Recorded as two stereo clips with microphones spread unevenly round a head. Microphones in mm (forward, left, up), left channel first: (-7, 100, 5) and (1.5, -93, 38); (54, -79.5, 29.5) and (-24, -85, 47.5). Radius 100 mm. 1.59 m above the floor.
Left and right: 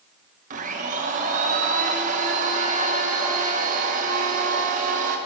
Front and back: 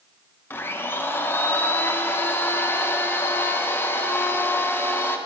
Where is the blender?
60° right, 0.9 m.